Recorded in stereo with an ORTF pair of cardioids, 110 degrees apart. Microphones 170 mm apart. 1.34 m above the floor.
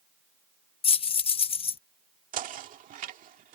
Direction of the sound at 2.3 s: 55° right.